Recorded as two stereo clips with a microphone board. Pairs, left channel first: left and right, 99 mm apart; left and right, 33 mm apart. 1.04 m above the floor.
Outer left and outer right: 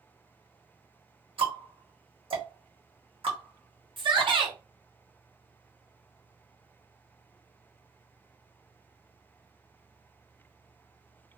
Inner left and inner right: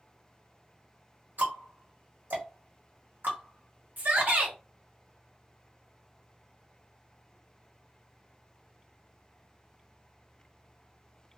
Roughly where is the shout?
Right.